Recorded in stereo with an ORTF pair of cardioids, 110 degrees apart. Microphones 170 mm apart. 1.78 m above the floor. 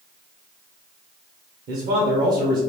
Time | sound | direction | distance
1.7 | a man speaking | 65° right | 1.3 m